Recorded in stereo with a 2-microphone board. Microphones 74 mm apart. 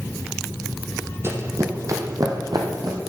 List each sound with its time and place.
1.2 s running footsteps: 35° right (ahead or behind), 1.8 m; by 3.0 s 65° right (ahead or behind), 2.5 m